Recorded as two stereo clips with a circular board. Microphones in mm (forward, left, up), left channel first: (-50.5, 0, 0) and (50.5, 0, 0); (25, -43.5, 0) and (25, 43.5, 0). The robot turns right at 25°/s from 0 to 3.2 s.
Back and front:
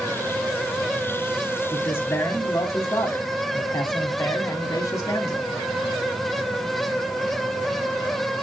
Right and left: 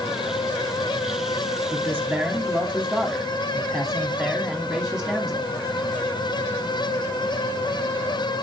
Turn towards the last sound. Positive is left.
turn(degrees=170)